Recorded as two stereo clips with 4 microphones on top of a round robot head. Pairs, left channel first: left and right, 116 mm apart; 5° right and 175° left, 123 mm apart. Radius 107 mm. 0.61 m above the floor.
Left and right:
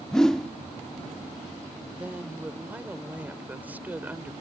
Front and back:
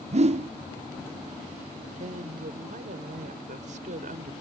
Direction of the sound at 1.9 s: 165° right.